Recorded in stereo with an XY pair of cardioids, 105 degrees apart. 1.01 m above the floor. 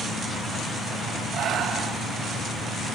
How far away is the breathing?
About 3.5 m.